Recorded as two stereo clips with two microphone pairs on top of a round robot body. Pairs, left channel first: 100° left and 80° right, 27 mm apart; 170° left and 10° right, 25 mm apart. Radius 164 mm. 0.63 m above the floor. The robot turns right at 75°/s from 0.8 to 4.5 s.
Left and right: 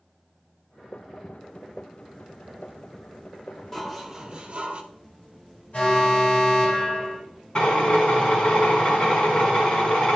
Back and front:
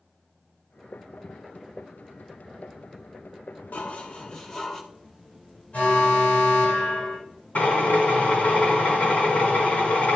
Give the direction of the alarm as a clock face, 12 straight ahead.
8 o'clock.